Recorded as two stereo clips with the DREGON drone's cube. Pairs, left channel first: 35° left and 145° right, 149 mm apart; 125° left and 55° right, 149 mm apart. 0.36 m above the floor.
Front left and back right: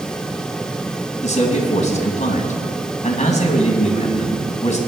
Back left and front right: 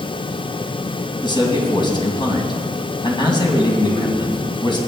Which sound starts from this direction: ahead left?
A man speaking, at 1.2 s.